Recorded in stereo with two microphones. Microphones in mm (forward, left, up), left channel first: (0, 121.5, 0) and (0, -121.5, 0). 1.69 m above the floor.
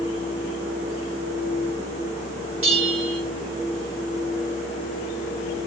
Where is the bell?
60° right (ahead or behind), 2.5 m.